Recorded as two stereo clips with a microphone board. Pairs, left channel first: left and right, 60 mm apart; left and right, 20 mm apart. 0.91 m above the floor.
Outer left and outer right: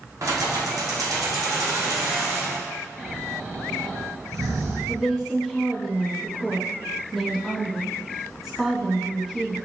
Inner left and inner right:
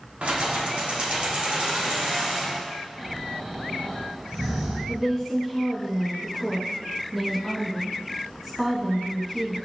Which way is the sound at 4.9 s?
5° right (ahead or behind).